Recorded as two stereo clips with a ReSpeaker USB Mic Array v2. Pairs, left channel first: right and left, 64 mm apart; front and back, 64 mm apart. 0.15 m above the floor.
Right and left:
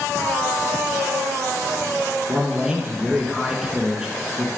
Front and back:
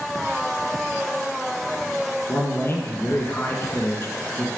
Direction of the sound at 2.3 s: 15° left.